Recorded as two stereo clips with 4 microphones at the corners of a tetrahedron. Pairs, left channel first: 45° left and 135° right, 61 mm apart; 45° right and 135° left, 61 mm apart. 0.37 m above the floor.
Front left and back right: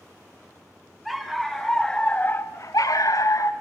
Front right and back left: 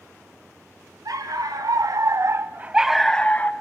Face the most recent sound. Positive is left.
turn(degrees=15)